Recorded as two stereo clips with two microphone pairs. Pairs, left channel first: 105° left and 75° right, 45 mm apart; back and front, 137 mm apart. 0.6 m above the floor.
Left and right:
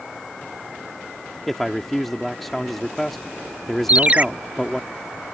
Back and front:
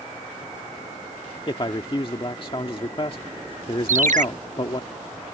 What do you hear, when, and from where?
1.5 s a man speaking: 175° right
3.9 s a ringtone: 20° right